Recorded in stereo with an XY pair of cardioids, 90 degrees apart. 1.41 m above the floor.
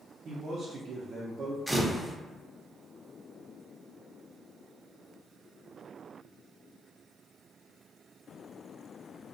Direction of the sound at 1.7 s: 10° right.